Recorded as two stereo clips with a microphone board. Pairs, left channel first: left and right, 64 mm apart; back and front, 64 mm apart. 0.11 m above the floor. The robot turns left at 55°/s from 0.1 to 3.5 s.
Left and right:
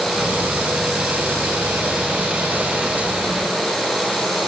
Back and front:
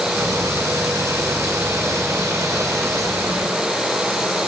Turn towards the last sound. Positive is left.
No sound to turn to.